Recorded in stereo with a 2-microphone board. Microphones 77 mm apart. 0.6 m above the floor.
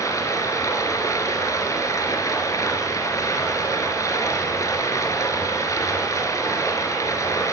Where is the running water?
50° left (ahead or behind), 2.5 m.